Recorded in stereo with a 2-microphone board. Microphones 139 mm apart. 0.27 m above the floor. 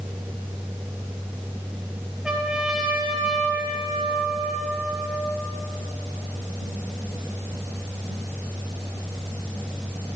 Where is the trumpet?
5° right (ahead or behind), 1.9 m.